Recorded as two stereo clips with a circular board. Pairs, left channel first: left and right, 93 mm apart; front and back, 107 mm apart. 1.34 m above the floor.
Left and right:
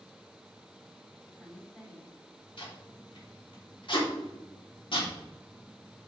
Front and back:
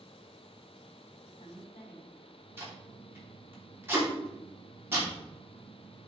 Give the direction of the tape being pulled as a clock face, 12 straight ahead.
8 o'clock.